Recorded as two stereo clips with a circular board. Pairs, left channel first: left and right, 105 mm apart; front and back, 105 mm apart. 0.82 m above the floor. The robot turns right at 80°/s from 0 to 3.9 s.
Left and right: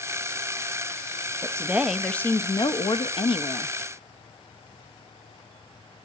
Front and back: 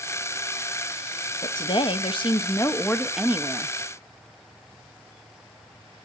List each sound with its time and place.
1.4 s a woman speaking: 40° right, 0.7 m; by 3.7 s 145° left, 0.7 m